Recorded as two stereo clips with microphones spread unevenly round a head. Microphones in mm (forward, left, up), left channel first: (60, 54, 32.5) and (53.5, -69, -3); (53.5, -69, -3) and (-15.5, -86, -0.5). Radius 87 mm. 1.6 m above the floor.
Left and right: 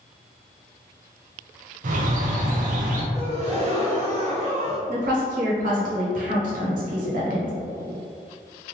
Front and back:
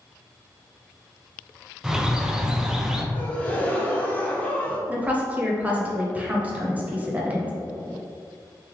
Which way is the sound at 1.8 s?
90° right.